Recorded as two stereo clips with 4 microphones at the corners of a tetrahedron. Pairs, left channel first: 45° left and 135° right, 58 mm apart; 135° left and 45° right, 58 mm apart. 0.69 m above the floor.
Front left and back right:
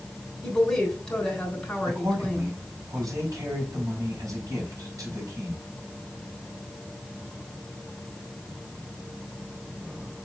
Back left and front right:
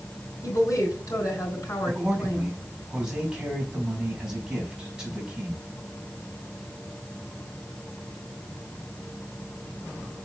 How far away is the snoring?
I don't hear snoring.